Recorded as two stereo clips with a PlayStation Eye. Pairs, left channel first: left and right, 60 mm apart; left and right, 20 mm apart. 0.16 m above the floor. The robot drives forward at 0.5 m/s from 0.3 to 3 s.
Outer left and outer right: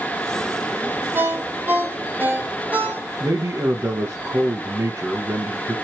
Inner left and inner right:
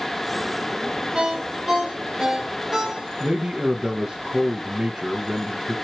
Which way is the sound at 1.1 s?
40° right (ahead or behind).